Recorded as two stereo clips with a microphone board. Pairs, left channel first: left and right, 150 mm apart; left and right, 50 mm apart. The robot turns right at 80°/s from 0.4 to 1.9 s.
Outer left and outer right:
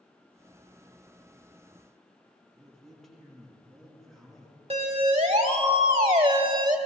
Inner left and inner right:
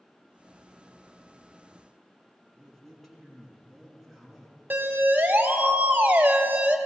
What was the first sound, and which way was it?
A man speaking, centre (ahead or behind).